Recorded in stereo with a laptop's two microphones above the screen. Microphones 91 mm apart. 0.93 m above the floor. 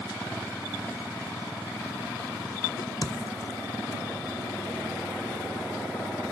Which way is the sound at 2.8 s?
45° left (ahead or behind).